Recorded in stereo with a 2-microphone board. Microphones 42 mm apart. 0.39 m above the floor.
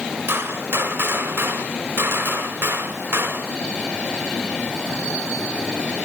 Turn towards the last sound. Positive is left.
turn(degrees=-65)  # may be behind; listen again after turning